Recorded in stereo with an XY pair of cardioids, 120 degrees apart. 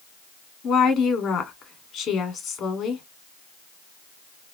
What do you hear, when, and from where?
0.6 s a woman speaking: 60° left, 1.4 m